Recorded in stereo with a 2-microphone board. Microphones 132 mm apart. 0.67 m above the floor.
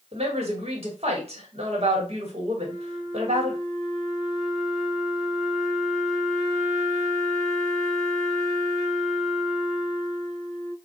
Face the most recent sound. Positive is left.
turn(degrees=-5)  # may be behind; listen again after turning